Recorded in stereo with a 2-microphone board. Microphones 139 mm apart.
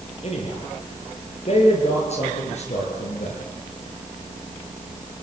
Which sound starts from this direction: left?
A man speaking, at 0.2 s.